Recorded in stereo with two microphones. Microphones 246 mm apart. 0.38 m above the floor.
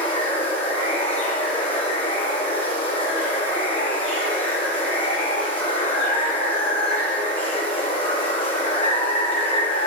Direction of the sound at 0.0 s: 5° left (ahead or behind).